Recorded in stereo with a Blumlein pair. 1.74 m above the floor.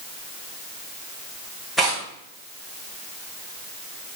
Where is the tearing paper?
5° right, 2.5 m.